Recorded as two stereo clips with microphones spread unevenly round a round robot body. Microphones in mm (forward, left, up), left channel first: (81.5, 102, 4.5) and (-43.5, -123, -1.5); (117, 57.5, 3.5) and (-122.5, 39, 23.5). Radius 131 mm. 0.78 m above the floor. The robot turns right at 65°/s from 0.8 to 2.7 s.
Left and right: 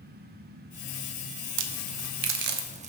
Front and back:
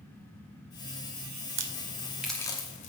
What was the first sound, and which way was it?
A crack, 130° right.